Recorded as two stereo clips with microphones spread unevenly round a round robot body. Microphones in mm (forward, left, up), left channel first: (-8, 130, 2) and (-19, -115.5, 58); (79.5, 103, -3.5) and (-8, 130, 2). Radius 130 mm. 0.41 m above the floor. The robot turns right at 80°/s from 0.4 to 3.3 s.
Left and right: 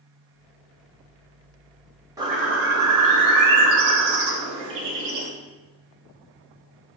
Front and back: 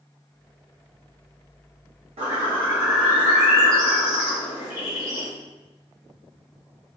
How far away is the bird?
About 0.5 m.